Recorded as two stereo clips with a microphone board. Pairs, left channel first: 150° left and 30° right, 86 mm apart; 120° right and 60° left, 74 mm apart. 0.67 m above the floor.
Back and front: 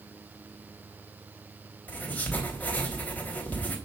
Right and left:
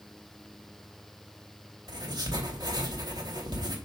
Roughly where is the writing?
Left.